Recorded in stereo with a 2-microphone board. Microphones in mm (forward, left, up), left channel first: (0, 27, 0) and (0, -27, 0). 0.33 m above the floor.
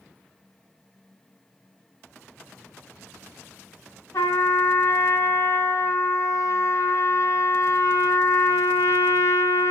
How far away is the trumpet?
About 1.5 m.